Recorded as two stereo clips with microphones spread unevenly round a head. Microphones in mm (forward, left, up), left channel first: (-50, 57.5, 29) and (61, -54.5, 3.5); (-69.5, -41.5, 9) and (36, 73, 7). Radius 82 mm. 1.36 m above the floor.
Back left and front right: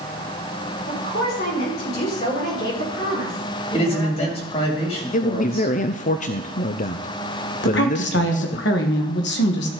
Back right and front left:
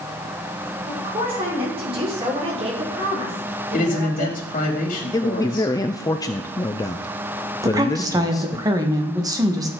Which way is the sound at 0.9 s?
105° left.